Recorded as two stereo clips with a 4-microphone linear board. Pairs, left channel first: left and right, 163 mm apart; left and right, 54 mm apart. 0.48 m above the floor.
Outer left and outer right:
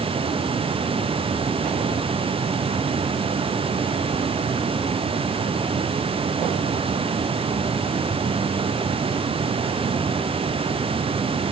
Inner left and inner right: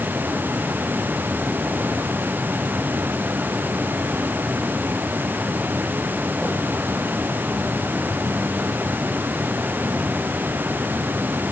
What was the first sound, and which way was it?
Only background noise.